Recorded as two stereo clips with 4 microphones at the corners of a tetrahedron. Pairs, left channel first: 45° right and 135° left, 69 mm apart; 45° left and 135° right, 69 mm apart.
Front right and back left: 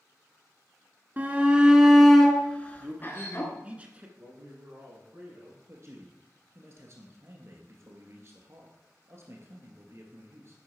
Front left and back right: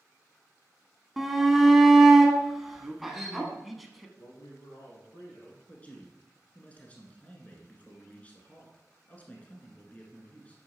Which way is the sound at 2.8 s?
140° left.